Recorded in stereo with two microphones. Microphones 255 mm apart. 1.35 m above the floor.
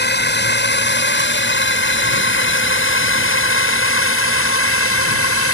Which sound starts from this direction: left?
A drone, at 0.0 s.